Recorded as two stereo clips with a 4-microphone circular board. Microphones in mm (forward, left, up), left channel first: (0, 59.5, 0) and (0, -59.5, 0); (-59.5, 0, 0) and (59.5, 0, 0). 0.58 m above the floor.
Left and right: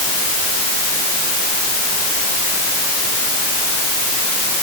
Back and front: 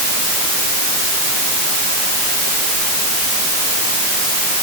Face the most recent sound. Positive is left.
No sound to turn to.